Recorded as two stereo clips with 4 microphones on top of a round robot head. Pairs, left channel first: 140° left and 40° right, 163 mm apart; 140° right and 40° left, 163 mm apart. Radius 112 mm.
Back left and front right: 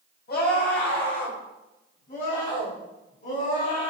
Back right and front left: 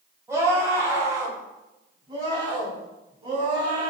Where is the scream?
115° left, 6 m; by 3.9 s 100° left, 9.5 m.